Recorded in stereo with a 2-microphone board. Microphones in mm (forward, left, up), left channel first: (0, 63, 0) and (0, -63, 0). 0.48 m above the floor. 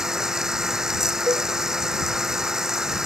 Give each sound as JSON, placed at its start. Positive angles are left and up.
{"t": 0.0, "sound": "running water", "side_deg": -5}
{"t": 1.3, "sound": "a cowbell", "side_deg": -35}